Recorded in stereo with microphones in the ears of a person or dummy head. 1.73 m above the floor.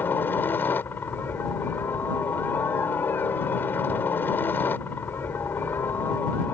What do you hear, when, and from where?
0.0 s a helicopter: 15° left (ahead or behind)